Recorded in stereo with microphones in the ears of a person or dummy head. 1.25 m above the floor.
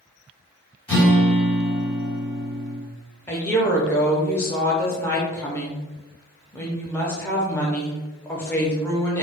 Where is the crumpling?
No crumpling in this recording.